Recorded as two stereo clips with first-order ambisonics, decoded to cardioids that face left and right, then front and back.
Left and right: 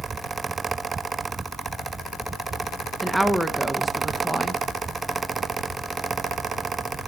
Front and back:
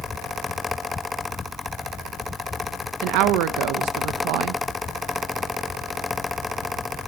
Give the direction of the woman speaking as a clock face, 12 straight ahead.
6 o'clock.